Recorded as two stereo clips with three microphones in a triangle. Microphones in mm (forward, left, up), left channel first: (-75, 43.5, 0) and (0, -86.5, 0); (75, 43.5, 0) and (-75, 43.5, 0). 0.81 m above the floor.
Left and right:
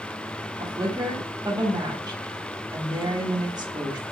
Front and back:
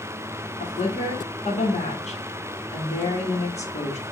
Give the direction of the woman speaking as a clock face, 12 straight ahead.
12 o'clock.